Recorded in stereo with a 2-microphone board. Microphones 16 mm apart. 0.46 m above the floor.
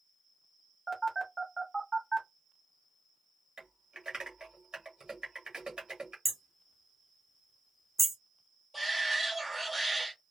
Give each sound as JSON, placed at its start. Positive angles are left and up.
{"t": 0.9, "sound": "a phone buzzing", "side_deg": 10, "distance_m": 1.1}
{"t": 3.6, "sound": "typing on a keyboard", "side_deg": -55, "distance_m": 1.4}
{"t": 6.2, "sound": "hammering", "side_deg": -5, "distance_m": 0.7}
{"t": 8.7, "sound": "a shout", "side_deg": -10, "distance_m": 1.8}